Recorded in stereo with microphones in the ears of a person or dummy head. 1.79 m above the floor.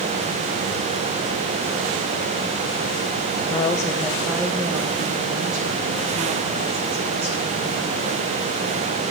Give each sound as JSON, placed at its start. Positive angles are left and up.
{"t": 3.5, "sound": "a woman speaking", "side_deg": 35, "distance_m": 0.7}